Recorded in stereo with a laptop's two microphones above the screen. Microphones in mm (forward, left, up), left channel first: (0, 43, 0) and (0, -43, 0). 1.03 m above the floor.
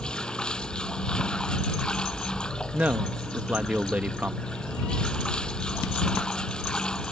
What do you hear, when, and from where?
0.0 s running water: 10° left (ahead or behind)
2.7 s a man speaking: 15° right (ahead or behind)